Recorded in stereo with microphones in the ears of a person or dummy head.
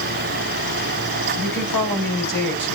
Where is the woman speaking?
50° left (ahead or behind), 7 m.